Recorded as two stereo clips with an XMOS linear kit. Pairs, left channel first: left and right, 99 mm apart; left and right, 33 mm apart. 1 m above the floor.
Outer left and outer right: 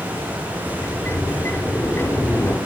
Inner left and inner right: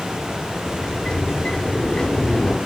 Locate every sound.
0.7 s a sliding door: 25° left (ahead or behind), 3 m